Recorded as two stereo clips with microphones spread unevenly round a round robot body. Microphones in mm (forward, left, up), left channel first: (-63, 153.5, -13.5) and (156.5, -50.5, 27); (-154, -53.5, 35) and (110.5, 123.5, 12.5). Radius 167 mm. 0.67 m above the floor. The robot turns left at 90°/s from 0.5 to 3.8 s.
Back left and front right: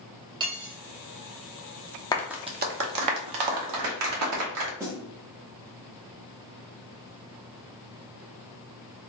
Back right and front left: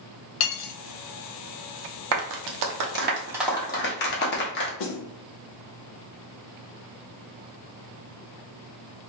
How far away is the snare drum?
About 0.6 m.